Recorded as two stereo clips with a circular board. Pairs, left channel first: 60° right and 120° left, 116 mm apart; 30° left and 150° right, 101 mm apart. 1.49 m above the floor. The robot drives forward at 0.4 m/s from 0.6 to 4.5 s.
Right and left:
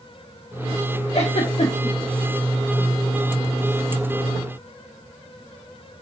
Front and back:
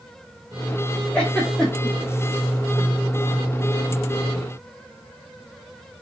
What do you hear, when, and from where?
1.1 s a giggle: 45° right, 2 m; by 1.9 s 55° right, 2 m